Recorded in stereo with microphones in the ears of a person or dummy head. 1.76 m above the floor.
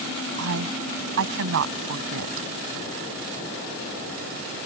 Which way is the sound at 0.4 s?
70° right (ahead or behind).